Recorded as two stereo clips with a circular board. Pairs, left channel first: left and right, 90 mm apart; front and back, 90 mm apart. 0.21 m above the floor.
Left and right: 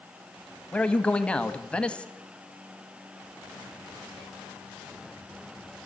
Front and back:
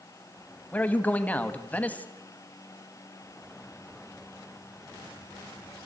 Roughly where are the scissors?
No scissors in this recording.